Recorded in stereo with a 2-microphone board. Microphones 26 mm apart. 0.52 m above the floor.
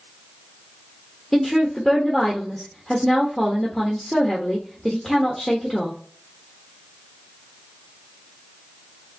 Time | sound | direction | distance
1.3 | a woman speaking | 5° left (ahead or behind) | 1.2 m